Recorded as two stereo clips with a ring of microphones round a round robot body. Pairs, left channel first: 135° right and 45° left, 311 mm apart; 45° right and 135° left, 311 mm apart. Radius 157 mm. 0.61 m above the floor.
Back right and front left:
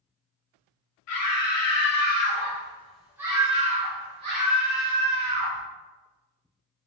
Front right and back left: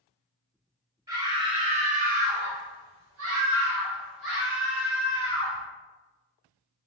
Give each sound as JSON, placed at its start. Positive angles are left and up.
{"t": 1.1, "sound": "a scream", "azimuth_deg": -150, "distance_m": 1.2}